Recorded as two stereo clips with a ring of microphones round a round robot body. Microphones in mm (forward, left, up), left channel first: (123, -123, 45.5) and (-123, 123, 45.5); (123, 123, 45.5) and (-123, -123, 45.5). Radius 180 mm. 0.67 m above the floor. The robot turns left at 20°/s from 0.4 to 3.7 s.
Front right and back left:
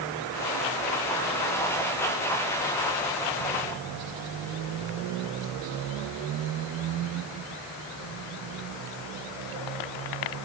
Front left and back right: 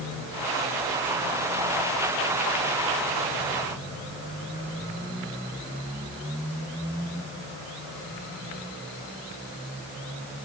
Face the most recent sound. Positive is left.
No sound to turn to.